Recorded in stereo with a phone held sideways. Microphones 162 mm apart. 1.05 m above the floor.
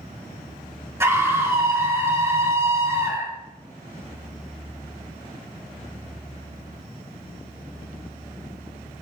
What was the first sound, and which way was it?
A scream, 15° right (ahead or behind).